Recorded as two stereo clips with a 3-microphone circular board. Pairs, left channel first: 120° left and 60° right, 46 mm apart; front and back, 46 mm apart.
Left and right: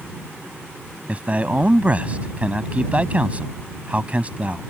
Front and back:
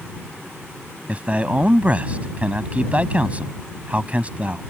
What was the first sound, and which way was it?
A man speaking, 120° right.